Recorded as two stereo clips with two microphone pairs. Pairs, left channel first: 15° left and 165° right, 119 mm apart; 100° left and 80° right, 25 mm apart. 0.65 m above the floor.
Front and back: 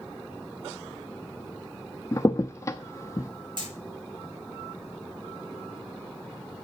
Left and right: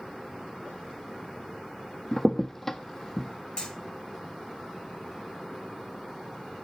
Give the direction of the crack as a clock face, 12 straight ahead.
10 o'clock.